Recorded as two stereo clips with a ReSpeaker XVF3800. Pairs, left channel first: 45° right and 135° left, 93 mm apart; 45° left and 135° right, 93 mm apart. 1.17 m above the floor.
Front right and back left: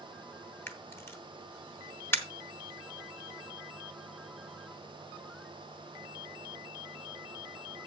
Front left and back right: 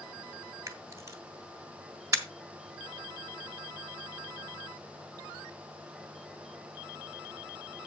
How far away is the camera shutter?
About 1.1 m.